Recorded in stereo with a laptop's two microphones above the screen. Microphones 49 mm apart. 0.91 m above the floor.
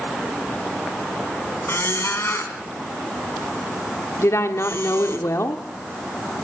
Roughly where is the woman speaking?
Left.